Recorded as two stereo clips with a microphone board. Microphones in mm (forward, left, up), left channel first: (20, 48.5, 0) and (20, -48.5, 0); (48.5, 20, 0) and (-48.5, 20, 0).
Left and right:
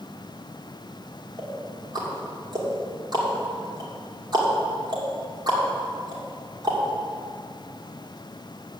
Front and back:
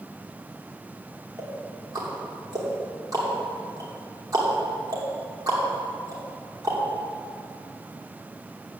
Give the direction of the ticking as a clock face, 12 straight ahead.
4 o'clock.